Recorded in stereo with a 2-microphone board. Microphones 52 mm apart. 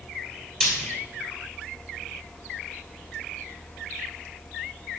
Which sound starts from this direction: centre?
Frying, at 0.6 s.